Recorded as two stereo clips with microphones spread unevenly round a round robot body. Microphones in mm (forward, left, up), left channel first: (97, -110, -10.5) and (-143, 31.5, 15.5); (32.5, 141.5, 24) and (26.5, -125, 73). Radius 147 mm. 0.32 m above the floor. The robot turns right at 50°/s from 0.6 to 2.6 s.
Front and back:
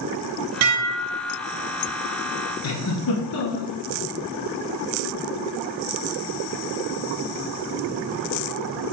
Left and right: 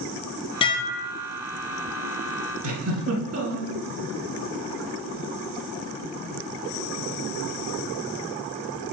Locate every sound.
0.6 s dishes clattering: 145° left, 1.0 m; by 1.4 s straight behind, 1.0 m
2.6 s a giggle: 55° right, 1.8 m